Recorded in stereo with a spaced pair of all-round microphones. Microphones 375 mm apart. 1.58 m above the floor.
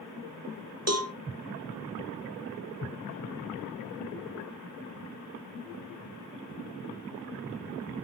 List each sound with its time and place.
0.9 s a cowbell: 40° right (ahead or behind), 0.9 m